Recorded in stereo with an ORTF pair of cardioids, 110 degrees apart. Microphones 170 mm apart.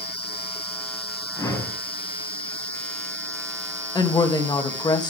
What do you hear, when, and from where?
1.4 s a whoosh: 20° left, 5.5 m
4.0 s a woman speaking: 25° left, 2.5 m